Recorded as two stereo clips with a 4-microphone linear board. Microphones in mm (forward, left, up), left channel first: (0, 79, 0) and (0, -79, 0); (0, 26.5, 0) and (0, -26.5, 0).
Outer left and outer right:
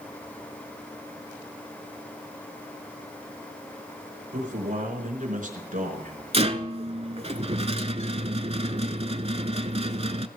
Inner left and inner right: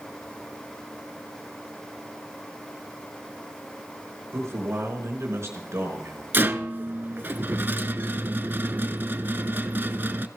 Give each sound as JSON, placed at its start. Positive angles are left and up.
{"t": 4.3, "sound": "a man speaking", "side_deg": -60, "distance_m": 4.0}
{"t": 6.3, "sound": "a rattle", "side_deg": -45, "distance_m": 0.7}